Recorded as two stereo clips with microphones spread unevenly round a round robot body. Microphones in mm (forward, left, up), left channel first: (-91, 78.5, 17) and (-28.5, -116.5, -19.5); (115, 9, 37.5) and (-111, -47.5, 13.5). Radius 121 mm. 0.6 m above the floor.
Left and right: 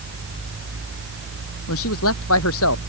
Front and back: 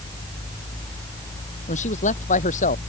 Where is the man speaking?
75° left.